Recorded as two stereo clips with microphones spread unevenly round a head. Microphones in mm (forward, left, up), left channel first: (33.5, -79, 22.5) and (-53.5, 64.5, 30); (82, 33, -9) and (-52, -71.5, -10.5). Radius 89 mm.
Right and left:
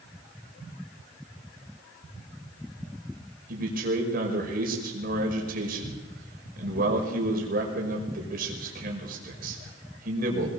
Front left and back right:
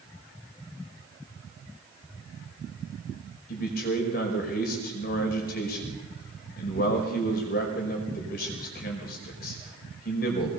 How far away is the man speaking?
About 5 m.